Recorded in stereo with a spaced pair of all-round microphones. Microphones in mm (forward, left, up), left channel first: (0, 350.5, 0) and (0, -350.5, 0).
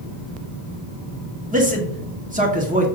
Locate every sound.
1.5 s a man speaking: 10° right (ahead or behind), 1.0 m